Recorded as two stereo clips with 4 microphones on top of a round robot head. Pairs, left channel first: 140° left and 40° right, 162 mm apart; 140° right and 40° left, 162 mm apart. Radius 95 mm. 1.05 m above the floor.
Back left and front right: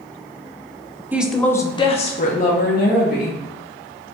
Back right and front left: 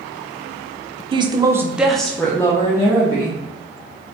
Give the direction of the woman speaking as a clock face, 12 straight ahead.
11 o'clock.